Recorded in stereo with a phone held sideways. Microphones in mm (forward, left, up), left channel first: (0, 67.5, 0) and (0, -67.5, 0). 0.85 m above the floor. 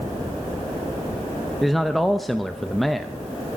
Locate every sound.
1.6 s a man speaking: centre (ahead or behind), 0.7 m